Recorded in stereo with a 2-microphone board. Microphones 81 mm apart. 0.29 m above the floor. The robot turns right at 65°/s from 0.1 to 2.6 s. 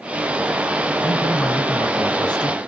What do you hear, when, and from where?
1.0 s a man speaking: 25° left, 3 m; by 2.6 s 125° left, 3 m